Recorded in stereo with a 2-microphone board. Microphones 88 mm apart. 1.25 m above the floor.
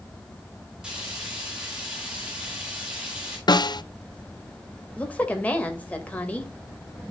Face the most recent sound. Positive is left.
turn(degrees=20)  # may be behind; listen again after turning